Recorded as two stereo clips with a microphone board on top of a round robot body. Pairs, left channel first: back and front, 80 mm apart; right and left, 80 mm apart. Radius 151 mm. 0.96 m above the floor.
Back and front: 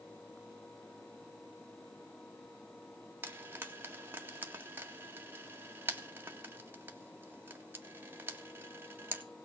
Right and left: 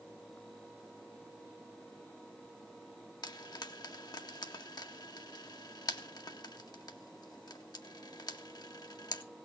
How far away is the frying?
About 2 m.